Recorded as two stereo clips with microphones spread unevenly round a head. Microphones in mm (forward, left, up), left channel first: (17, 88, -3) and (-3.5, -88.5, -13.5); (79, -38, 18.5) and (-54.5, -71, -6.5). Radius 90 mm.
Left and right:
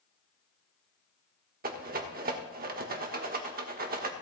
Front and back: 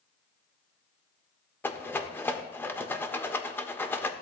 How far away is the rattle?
About 1.2 m.